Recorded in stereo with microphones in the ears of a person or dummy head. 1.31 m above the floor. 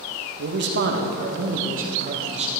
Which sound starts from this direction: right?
A man speaking, at 0.4 s.